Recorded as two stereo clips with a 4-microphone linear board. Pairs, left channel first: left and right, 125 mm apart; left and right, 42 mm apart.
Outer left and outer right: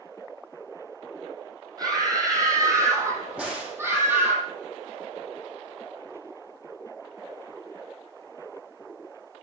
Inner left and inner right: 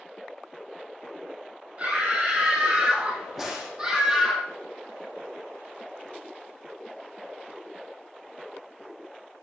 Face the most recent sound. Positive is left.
turn(degrees=-10)  # may be behind; listen again after turning